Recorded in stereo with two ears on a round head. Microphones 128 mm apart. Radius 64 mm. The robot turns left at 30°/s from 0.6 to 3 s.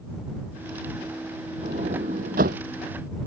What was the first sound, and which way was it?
A sliding door, 40° right (ahead or behind).